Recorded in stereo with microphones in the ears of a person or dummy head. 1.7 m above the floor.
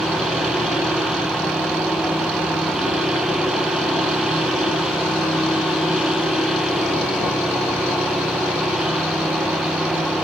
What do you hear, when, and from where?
0.0 s a machine running: 5° right (ahead or behind), 1.8 m